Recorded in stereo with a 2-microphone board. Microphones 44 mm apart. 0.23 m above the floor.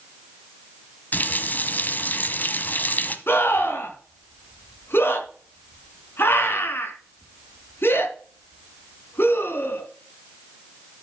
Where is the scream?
60° left (ahead or behind), 3 m.